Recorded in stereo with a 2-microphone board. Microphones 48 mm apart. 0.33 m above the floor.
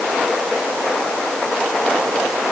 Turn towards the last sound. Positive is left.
No sound to turn to.